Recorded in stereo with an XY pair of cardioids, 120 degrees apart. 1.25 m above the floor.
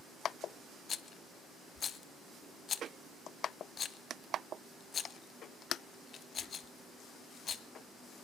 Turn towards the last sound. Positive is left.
turn(degrees=40)